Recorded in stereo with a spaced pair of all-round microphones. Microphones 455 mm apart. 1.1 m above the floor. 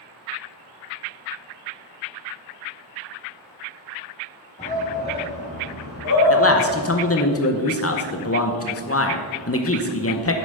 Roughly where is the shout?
Centre.